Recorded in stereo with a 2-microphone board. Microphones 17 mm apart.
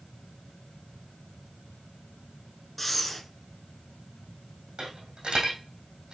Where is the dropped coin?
75° right (ahead or behind), 3 m.